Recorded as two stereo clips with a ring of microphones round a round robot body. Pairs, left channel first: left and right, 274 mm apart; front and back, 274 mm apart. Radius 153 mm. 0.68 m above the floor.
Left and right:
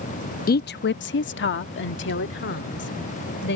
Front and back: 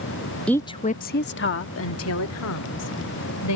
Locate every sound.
0.5 s a woman speaking: 85° left; by 3.6 s 35° left